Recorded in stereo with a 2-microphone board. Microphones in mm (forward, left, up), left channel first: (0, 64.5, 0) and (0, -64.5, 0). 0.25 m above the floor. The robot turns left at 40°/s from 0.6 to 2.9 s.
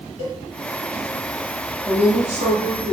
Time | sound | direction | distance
0.2 | a cowbell | 65° right (ahead or behind) | 1.7 m
1.9 | a woman speaking | 85° right | 1.6 m